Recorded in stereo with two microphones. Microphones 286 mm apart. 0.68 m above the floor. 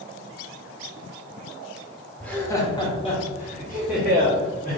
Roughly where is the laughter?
Centre.